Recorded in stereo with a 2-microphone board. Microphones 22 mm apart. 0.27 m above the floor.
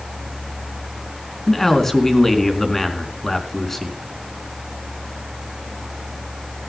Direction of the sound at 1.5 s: 20° left (ahead or behind).